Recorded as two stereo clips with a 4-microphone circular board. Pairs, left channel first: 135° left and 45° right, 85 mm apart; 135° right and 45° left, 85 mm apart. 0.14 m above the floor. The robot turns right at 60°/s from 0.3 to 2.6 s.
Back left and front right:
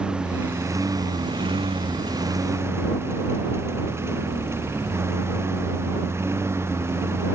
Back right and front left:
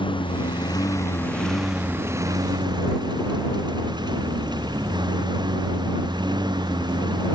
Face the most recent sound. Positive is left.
turn(degrees=15)